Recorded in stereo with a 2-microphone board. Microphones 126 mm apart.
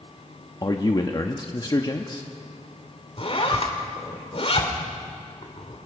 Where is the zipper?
50° left (ahead or behind), 2.5 m.